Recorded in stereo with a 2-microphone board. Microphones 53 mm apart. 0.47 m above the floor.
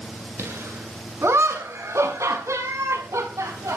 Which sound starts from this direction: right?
Laughter, at 0.4 s.